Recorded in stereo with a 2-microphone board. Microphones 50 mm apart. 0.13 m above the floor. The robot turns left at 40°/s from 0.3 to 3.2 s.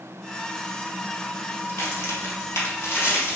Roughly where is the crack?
Left.